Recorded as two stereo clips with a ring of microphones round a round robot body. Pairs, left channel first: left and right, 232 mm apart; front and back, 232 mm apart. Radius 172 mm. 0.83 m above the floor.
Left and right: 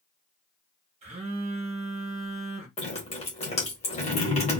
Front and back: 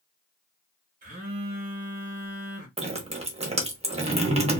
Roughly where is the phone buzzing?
Behind right.